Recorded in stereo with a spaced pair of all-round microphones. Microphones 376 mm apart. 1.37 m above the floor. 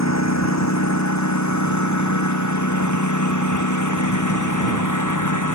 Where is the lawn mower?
45° left (ahead or behind); by 5.5 s 50° left (ahead or behind).